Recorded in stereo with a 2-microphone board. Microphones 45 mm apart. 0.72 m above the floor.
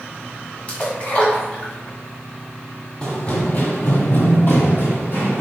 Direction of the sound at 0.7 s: 30° left (ahead or behind).